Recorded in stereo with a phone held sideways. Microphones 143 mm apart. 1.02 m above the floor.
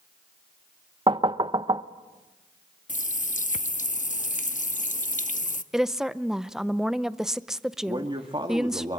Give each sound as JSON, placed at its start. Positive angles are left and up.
{"t": 1.1, "sound": "knocking", "side_deg": -35, "distance_m": 0.6}
{"t": 2.9, "sound": "a running tap", "side_deg": 60, "distance_m": 0.8}
{"t": 5.7, "sound": "a woman speaking", "side_deg": -5, "distance_m": 0.5}
{"t": 7.9, "sound": "a man speaking", "side_deg": -35, "distance_m": 1.7}